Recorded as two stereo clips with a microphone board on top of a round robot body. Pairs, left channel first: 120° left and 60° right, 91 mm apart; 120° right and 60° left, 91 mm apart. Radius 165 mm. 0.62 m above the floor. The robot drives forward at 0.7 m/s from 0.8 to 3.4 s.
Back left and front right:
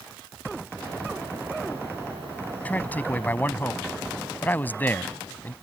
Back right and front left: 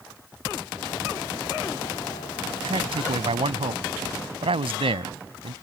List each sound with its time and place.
2.6 s a man speaking: 45° left; by 5.5 s 50° left